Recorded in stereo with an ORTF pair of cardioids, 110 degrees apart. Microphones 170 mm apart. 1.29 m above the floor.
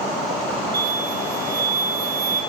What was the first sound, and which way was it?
An explosion, 70° right.